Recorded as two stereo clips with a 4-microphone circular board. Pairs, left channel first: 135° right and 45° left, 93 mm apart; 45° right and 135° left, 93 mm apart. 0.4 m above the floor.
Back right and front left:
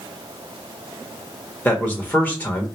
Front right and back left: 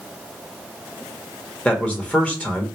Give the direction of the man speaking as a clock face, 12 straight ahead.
3 o'clock.